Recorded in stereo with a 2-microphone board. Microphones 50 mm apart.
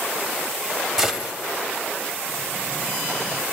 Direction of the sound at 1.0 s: 10° right (ahead or behind).